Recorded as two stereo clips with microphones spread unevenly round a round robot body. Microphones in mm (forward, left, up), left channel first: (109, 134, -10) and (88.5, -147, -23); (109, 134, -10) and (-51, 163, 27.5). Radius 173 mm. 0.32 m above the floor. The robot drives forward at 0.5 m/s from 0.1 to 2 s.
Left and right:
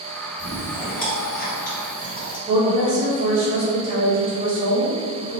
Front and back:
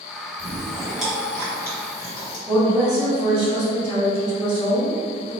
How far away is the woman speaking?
About 1.3 m.